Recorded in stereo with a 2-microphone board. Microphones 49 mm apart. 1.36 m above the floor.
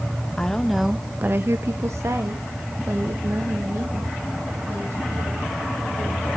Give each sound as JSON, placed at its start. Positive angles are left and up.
{"t": 0.4, "sound": "a woman speaking", "side_deg": 15, "distance_m": 0.9}